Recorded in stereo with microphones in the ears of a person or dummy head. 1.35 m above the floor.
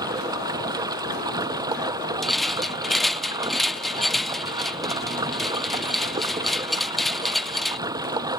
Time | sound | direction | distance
0.0 | running water | 20° right (ahead or behind) | ?
2.2 | a rattle | centre (ahead or behind) | ?